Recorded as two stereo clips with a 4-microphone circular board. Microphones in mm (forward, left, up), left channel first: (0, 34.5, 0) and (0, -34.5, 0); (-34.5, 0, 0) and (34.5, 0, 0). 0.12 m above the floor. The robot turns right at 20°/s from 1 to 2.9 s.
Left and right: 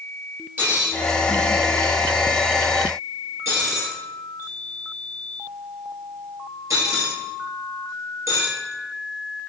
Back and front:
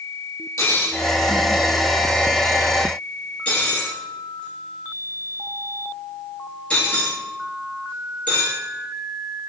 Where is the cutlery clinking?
145° right, 1.6 m; by 8.6 s 110° right, 1.6 m.